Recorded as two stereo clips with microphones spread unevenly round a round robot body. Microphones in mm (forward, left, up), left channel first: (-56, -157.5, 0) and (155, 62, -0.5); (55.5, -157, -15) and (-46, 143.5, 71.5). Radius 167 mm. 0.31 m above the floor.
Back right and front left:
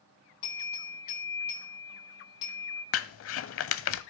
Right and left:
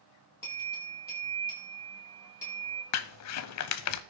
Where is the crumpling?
90° right, 0.8 m.